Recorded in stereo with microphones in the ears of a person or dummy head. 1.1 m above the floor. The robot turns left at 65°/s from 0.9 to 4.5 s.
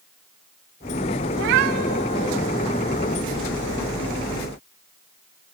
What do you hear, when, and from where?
1.3 s a cat meowing: 90° right, 1.2 m; by 2.4 s 160° right, 1.2 m